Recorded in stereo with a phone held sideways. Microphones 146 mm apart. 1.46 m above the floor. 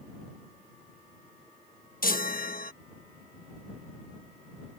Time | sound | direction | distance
2.0 | a chime | 75° left (ahead or behind) | ?